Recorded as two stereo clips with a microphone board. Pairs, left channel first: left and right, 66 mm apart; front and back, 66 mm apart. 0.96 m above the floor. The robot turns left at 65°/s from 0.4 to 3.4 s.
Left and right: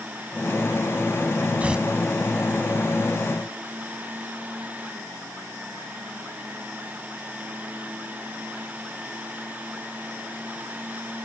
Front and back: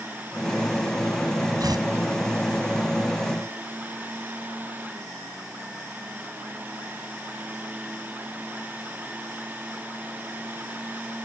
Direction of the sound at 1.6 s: 160° right.